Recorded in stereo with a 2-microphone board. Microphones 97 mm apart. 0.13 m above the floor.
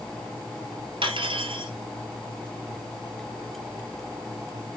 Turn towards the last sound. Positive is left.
turn(degrees=-65)  # may be behind; listen again after turning